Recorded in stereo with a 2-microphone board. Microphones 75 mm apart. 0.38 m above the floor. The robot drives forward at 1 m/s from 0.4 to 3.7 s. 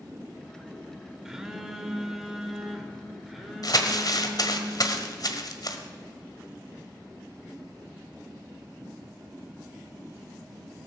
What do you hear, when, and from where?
1.2 s a phone buzzing: 5° right (ahead or behind), 1.3 m; by 4.6 s centre (ahead or behind), 3.5 m
3.6 s crumpling: 55° left (ahead or behind), 1.4 m